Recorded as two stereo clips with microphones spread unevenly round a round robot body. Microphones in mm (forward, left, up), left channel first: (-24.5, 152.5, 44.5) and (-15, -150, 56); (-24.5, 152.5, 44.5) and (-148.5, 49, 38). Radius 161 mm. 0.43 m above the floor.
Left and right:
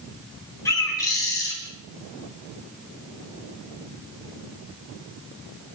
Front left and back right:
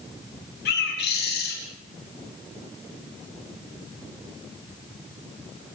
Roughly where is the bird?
Ahead.